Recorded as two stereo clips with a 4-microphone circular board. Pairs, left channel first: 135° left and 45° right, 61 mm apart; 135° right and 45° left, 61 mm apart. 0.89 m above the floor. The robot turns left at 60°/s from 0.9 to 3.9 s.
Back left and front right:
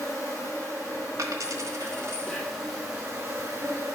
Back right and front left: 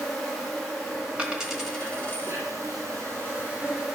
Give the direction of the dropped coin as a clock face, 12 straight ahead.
1 o'clock.